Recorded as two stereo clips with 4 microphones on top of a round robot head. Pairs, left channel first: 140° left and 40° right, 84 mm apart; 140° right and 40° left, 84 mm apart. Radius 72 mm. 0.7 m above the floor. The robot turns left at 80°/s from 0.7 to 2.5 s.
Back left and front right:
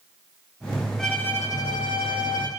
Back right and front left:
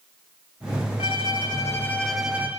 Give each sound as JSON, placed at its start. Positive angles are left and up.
{"t": 1.0, "sound": "a violin", "azimuth_deg": -135, "distance_m": 10.0}